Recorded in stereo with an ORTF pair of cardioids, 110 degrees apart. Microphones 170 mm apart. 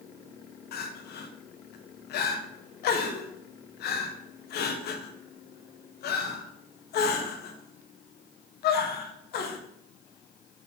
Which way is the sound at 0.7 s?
65° left.